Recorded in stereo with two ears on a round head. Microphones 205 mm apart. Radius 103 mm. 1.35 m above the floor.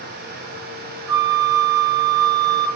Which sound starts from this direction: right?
A flute, at 1.1 s.